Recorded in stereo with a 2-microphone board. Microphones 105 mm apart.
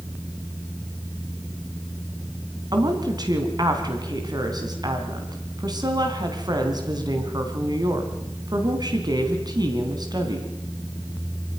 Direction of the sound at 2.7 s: 40° right (ahead or behind).